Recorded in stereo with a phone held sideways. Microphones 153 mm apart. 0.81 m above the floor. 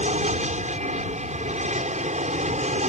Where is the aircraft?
50° right (ahead or behind).